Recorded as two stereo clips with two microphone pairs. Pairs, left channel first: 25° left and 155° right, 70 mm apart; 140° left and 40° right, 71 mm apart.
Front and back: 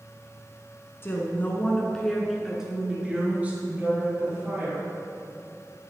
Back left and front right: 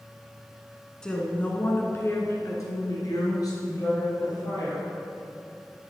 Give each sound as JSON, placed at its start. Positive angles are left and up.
{"t": 1.0, "sound": "a woman speaking", "azimuth_deg": 65, "distance_m": 1.8}